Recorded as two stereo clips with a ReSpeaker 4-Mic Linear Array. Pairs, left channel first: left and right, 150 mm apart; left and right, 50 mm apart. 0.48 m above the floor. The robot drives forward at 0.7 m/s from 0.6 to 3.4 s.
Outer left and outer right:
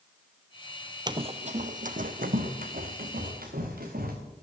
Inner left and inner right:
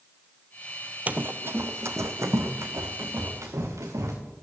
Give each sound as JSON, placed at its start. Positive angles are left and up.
{"t": 1.1, "sound": "running footsteps", "side_deg": -30, "distance_m": 0.7}